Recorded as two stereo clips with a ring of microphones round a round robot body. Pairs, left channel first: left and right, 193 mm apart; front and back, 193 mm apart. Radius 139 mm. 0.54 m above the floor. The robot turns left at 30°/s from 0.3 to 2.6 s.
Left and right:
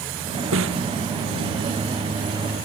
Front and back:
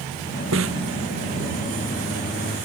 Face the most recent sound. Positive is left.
turn(degrees=165)